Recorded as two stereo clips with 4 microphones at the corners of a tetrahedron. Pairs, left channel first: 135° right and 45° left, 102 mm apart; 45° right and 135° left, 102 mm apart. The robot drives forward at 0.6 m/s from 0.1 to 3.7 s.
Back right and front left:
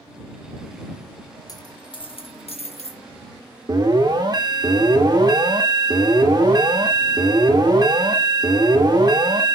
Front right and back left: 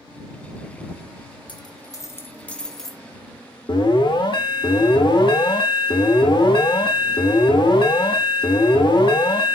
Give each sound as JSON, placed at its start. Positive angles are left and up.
{"t": 1.5, "sound": "a dropped coin", "azimuth_deg": -85, "distance_m": 0.9}
{"t": 3.7, "sound": "an alarm", "azimuth_deg": 0, "distance_m": 1.3}